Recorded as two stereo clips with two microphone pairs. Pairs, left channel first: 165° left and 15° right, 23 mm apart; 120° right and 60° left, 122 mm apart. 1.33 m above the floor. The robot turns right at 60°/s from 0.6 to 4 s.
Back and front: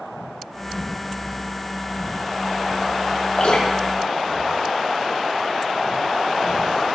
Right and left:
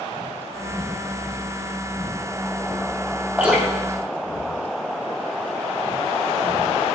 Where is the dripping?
135° left, 3.5 m; by 5.5 s 175° left, 3.5 m.